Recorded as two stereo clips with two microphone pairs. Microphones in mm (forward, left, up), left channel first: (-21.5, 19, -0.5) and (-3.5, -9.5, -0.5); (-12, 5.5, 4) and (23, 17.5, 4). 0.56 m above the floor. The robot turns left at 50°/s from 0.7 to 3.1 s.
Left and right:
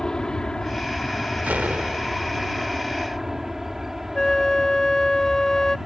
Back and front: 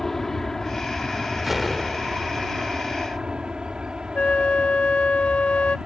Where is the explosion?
65° right; by 2.7 s 125° right.